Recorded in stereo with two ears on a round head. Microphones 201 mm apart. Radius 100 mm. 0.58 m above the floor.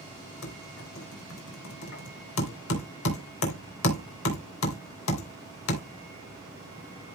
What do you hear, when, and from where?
0.4 s typing on a keyboard: 65° left (ahead or behind), 3 m